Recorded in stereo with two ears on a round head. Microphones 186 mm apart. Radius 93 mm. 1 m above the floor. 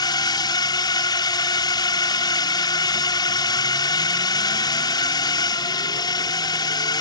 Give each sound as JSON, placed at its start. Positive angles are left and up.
{"t": 0.0, "sound": "a drone", "side_deg": 20}